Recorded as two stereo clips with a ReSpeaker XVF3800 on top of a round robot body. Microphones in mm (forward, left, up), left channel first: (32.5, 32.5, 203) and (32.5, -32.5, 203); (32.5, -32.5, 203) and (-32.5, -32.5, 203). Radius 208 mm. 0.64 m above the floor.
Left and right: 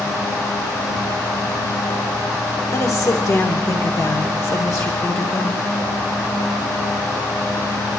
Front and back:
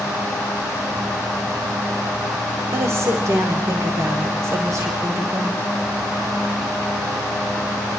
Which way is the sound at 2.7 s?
130° left.